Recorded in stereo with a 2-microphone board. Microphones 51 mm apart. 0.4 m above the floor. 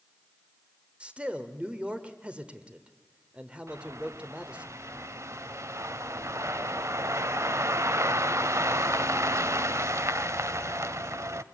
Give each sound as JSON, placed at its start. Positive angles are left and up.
{"t": 1.0, "sound": "a man speaking", "side_deg": -25, "distance_m": 1.1}
{"t": 3.7, "sound": "a bird", "side_deg": -75, "distance_m": 0.6}